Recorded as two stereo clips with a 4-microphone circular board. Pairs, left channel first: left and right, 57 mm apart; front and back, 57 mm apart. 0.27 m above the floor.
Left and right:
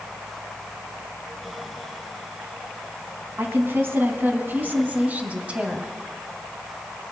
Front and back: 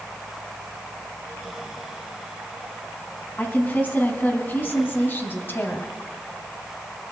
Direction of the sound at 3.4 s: 55° right.